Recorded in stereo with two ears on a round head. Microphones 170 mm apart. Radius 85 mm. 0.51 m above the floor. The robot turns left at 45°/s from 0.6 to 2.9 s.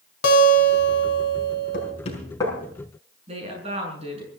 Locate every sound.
0.2 s a guitar: 110° left, 3 m; by 1.9 s 50° left, 3 m
1.7 s knocking: 50° left (ahead or behind), 5 m; by 2.5 s 15° left (ahead or behind), 5 m
3.3 s a woman speaking: 35° right (ahead or behind), 6.5 m